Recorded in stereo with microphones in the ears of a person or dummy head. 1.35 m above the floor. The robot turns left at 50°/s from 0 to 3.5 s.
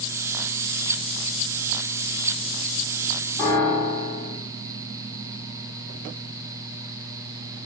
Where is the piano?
20° left (ahead or behind), 1.9 m; by 4.4 s 25° left (ahead or behind), 1.9 m.